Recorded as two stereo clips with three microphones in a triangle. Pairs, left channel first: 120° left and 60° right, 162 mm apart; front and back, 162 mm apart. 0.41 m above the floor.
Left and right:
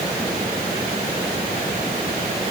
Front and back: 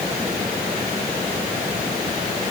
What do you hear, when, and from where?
Only background noise.